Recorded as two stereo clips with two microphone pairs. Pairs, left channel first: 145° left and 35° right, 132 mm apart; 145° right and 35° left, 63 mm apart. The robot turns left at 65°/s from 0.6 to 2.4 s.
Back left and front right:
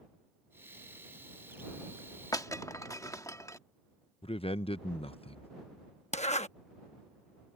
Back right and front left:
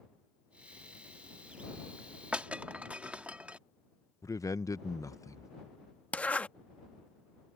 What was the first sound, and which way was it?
Breaking glass, 95° left.